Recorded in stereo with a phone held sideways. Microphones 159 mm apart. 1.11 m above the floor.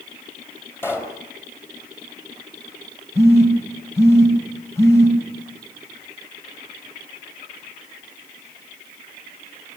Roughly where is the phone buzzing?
Centre.